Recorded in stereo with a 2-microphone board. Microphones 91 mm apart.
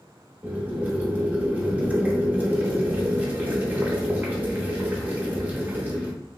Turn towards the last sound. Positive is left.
turn(degrees=-20)  # may be behind; listen again after turning